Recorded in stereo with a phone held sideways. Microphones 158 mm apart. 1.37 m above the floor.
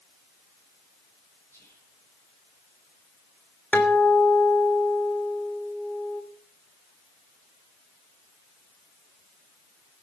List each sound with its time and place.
1.5 s whispering: 15° left (ahead or behind), 9.5 m
3.7 s a guitar: 10° left (ahead or behind), 2.5 m